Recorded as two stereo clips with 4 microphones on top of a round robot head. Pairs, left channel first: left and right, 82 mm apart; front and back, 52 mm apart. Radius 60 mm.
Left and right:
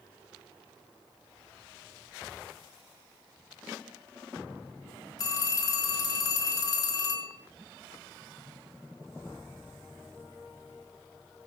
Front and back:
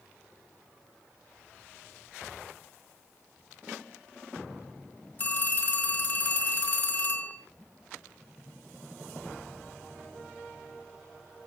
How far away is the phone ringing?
About 4.5 m.